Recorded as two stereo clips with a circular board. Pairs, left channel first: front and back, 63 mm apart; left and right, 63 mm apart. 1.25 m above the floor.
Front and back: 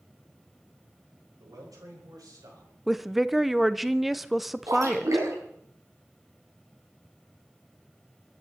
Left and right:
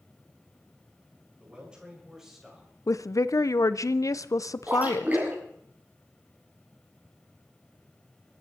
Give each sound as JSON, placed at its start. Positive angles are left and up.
{"t": 1.4, "sound": "a man speaking", "azimuth_deg": -160, "distance_m": 5.5}
{"t": 2.9, "sound": "a woman speaking", "azimuth_deg": 95, "distance_m": 0.6}
{"t": 4.7, "sound": "a splash", "azimuth_deg": -150, "distance_m": 5.0}